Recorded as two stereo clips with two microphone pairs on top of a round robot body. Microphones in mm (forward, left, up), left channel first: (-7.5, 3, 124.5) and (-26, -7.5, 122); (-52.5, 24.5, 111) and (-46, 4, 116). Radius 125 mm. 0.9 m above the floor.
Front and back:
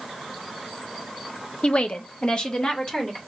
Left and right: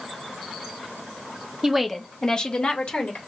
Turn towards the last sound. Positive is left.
turn(degrees=90)